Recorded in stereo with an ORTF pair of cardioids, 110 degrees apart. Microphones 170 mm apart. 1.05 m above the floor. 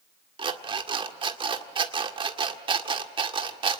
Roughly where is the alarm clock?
Ahead right.